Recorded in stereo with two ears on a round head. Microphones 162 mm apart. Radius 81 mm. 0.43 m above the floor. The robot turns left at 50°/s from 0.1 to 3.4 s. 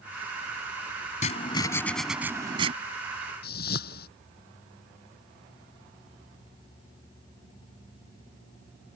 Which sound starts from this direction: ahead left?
Writing, at 1.2 s.